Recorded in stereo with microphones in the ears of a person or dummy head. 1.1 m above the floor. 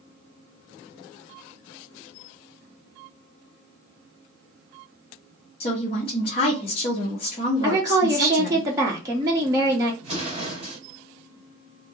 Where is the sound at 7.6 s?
15° right (ahead or behind), 0.8 m.